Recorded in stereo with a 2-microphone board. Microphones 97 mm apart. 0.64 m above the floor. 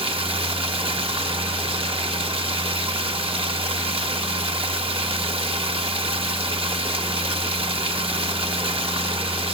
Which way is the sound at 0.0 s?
75° right (ahead or behind).